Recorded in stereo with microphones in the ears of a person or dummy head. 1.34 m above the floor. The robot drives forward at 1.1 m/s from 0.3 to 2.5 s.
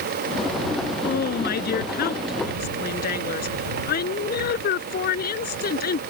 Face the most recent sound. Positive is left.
turn(degrees=50)  # may be behind; listen again after turning